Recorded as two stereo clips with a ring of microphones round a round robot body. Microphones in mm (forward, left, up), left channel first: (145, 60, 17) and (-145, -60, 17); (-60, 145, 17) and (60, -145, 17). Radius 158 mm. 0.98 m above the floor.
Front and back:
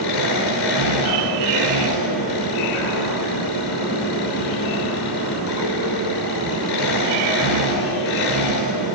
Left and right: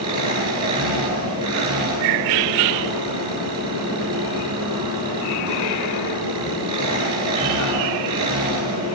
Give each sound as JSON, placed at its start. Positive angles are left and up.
{"t": 0.0, "sound": "an engine running", "azimuth_deg": 10, "distance_m": 9.5}